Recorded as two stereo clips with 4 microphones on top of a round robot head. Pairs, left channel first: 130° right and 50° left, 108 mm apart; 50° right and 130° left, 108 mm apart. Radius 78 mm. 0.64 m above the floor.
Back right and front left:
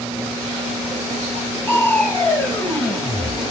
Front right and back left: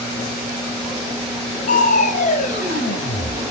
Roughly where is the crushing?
Ahead right.